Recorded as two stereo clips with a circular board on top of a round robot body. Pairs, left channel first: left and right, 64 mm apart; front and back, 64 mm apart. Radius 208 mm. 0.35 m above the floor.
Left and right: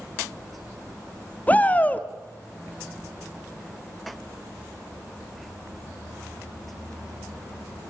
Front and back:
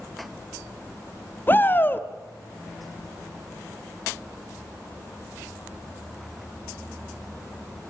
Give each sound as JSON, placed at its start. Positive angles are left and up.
{"t": 1.5, "sound": "a shout", "azimuth_deg": 40, "distance_m": 1.4}